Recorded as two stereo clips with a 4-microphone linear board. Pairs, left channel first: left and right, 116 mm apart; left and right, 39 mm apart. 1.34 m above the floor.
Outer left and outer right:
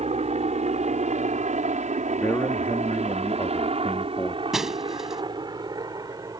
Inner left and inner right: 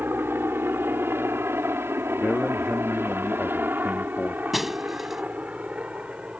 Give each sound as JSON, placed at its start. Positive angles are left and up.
{"t": 0.0, "sound": "a helicopter", "side_deg": -60}
{"t": 2.2, "sound": "a man speaking", "side_deg": 20}
{"t": 4.5, "sound": "breaking glass", "side_deg": -5}